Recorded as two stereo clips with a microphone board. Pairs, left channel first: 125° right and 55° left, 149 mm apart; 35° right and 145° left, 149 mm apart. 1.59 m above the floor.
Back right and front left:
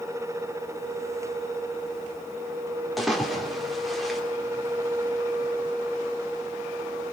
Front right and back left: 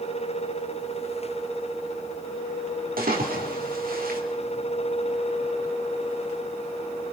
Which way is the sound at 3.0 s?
145° left.